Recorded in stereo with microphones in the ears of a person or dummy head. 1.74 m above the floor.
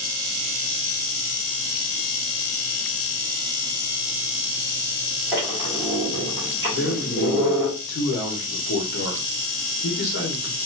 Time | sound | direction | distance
5.3 | a squeak | 20° right (ahead or behind) | 1.5 m
6.7 | a man speaking | 70° left (ahead or behind) | 1.6 m